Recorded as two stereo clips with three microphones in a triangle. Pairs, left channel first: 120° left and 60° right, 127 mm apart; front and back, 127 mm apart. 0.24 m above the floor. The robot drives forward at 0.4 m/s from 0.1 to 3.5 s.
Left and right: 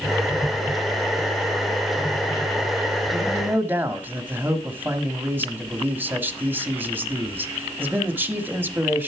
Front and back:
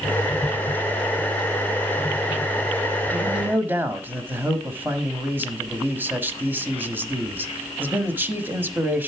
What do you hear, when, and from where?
3.1 s a man speaking: 105° right, 1.2 m; by 9.1 s 120° right, 1.2 m